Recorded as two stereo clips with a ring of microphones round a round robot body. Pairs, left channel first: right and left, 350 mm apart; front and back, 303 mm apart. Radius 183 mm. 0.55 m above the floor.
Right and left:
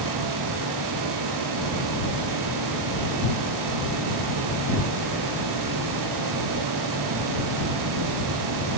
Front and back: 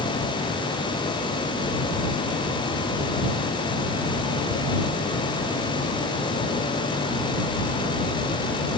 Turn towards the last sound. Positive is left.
No sound to turn to.